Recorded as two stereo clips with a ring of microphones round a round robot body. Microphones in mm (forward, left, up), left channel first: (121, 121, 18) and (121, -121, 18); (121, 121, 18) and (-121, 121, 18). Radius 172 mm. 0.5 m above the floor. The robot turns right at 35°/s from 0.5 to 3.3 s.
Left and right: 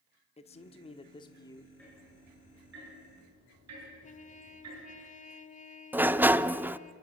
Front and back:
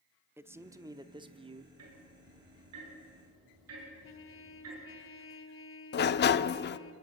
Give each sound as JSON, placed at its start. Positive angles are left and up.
{"t": 0.4, "sound": "a man speaking", "azimuth_deg": 110, "distance_m": 1.0}
{"t": 1.8, "sound": "ticking", "azimuth_deg": 175, "distance_m": 7.0}
{"t": 4.0, "sound": "a trumpet", "azimuth_deg": 30, "distance_m": 1.4}
{"t": 5.9, "sound": "a sliding door", "azimuth_deg": -10, "distance_m": 0.6}